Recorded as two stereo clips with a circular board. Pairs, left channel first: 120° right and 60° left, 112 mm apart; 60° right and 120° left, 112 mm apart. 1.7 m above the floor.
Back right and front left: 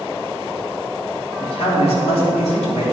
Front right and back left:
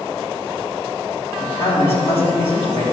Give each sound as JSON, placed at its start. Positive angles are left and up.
{"t": 1.4, "sound": "a man speaking", "azimuth_deg": -90, "distance_m": 3.0}